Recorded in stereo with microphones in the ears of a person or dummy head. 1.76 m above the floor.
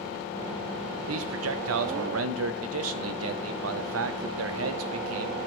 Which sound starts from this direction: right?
A man speaking, at 1.1 s.